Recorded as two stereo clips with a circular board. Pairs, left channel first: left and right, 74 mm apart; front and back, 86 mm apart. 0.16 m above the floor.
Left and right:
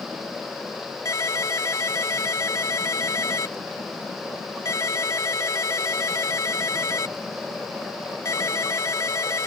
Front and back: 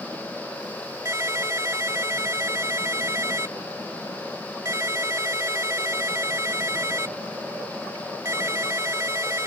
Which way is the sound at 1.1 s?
130° left.